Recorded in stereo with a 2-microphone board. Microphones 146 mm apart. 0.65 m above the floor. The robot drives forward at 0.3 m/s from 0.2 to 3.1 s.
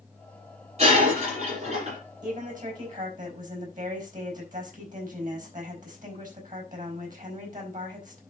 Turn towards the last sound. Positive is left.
turn(degrees=-65)  # may be behind; listen again after turning